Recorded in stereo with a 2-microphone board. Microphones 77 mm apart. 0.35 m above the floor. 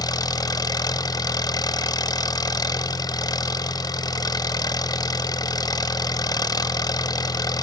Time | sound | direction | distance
0.0 | an engine running | 55° left (ahead or behind) | 0.8 m